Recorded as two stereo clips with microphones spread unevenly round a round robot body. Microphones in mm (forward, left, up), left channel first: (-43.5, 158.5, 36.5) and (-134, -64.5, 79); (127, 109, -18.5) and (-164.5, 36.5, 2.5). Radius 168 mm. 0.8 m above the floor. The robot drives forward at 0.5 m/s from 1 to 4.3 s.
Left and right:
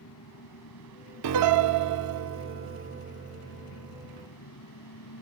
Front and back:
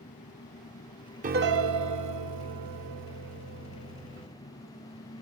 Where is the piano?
100° right; by 4.3 s 160° right.